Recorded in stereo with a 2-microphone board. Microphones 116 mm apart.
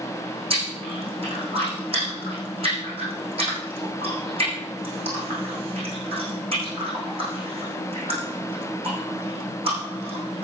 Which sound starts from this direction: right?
Chewing, at 0.5 s.